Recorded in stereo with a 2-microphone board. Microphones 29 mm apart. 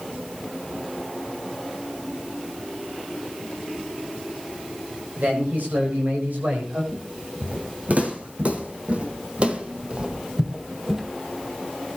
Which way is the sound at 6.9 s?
65° right (ahead or behind).